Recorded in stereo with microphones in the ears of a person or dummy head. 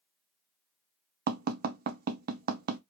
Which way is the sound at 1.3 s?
45° right (ahead or behind).